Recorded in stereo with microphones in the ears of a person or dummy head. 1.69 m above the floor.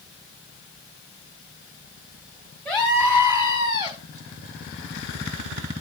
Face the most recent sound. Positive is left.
turn(degrees=-25)  # may be behind; listen again after turning